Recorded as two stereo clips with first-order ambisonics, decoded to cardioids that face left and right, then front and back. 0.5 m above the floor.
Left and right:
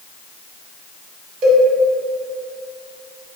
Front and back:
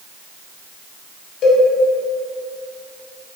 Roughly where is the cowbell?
Ahead right.